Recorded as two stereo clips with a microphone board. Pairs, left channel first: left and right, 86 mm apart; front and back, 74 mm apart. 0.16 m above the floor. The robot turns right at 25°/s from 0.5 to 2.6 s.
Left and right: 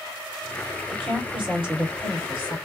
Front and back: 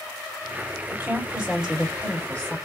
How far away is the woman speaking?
About 3 m.